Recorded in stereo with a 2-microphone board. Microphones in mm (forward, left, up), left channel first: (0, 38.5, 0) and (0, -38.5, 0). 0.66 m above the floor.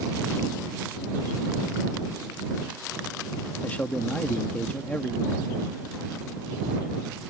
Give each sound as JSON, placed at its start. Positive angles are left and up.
{"t": 3.6, "sound": "a man speaking", "side_deg": 20}